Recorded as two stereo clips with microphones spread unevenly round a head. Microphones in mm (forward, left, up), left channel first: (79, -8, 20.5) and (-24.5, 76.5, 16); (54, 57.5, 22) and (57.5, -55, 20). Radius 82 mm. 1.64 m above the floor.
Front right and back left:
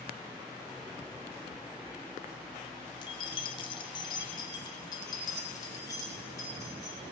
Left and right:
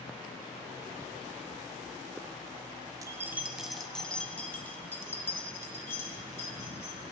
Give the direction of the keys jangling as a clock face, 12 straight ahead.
2 o'clock.